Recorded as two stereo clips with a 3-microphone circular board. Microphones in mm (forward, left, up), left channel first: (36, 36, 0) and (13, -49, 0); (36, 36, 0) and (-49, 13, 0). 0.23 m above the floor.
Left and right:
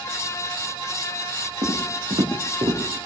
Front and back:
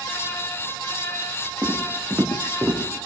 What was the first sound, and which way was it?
Footsteps, 95° right.